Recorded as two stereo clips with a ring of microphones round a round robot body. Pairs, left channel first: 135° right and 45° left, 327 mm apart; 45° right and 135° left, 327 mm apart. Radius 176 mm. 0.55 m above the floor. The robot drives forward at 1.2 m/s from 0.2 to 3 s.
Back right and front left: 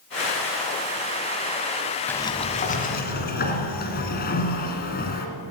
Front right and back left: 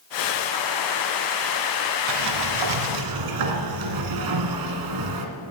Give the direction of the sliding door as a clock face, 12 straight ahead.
7 o'clock.